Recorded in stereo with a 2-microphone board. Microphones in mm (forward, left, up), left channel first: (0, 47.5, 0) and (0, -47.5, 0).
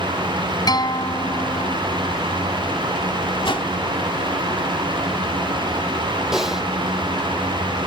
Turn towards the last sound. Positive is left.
turn(degrees=-5)  # may be behind; listen again after turning